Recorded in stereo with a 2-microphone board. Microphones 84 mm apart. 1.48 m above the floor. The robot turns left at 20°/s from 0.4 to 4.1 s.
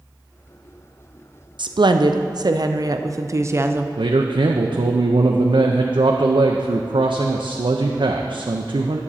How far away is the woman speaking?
About 0.5 m.